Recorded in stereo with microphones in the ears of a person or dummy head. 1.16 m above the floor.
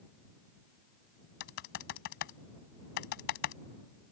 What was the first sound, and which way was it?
Typing on a keyboard, 60° left (ahead or behind).